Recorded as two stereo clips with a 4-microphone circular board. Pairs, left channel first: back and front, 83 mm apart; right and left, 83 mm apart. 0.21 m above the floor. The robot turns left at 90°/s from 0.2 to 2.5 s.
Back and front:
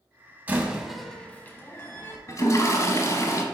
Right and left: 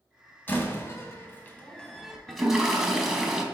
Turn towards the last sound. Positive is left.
turn(degrees=170)